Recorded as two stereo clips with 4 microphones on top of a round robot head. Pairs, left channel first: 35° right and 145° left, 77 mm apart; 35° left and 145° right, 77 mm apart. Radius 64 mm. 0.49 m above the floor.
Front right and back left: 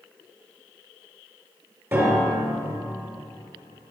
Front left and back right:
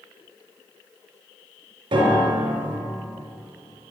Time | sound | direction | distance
1.9 | a piano | 155° right | 3.5 m